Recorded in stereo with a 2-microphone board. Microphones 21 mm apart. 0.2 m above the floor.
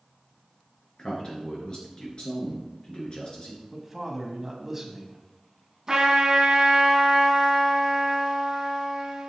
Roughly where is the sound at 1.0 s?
Left.